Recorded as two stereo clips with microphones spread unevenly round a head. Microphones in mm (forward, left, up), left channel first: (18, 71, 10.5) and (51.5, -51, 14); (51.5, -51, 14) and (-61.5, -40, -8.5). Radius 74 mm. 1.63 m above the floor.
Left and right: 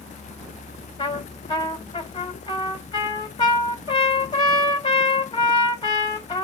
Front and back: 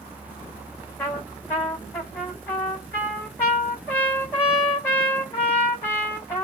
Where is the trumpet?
60° left, 2.5 m.